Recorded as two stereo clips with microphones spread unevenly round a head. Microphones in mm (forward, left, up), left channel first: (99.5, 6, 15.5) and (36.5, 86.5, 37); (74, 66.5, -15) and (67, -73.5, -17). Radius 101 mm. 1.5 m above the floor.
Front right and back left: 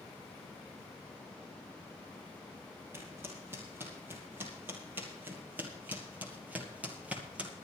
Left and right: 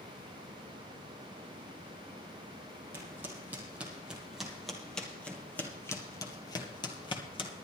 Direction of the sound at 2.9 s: 165° right.